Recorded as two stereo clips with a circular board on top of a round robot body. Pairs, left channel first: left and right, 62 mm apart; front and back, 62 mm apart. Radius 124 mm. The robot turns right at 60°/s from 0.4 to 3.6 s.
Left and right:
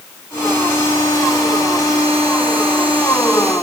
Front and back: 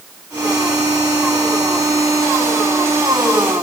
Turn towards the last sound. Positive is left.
No sound to turn to.